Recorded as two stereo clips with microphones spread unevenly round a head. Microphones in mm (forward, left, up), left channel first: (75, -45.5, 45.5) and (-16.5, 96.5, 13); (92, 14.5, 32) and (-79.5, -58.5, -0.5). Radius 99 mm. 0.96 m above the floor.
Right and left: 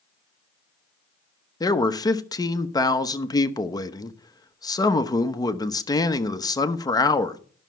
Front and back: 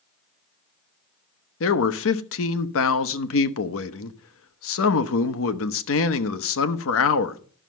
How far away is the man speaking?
About 1.0 m.